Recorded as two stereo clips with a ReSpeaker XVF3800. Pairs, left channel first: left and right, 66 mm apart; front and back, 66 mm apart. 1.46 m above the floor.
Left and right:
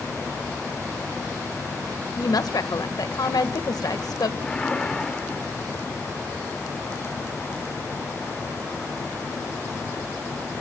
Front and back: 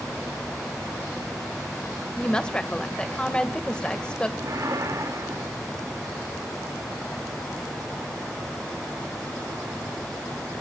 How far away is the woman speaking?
About 1.8 m.